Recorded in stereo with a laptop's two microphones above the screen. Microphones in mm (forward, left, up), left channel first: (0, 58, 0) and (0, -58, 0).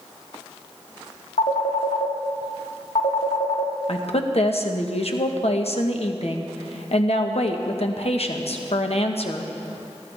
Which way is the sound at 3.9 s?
60° left (ahead or behind).